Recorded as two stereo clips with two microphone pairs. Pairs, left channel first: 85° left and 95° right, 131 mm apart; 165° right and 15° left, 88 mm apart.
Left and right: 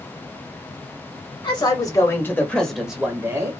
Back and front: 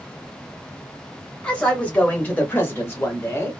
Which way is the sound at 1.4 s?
120° left.